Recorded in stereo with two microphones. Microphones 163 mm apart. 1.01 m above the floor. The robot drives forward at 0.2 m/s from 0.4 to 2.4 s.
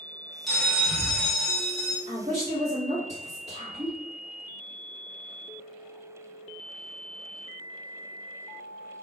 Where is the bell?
Centre (ahead or behind), 0.7 m.